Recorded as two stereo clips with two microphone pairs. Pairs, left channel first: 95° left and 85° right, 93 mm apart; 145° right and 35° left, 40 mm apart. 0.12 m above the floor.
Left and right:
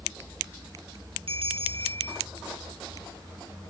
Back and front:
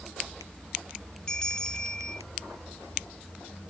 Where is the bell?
70° right.